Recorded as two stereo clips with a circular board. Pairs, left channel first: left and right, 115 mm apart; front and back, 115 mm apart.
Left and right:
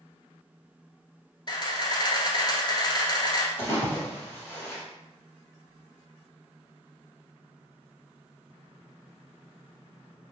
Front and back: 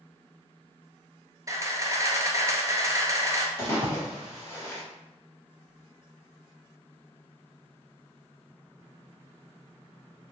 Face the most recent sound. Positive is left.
turn(degrees=45)